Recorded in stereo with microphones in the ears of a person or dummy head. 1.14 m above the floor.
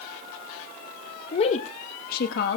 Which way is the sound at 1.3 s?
30° left (ahead or behind).